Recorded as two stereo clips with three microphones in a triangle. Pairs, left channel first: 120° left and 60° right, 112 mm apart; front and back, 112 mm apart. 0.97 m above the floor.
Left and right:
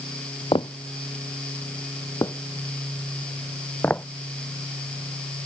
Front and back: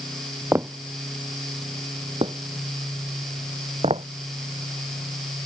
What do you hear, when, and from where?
0.5 s footsteps: 120° left; by 4.0 s 165° right